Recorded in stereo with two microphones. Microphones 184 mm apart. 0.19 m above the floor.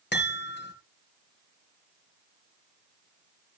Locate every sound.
0.1 s a chime: 70° left (ahead or behind), 3 m